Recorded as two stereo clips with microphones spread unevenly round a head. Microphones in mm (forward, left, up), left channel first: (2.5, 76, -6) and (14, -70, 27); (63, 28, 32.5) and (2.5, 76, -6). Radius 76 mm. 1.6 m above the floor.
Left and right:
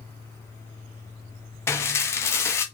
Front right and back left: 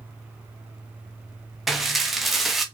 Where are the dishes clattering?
15° left, 0.6 m.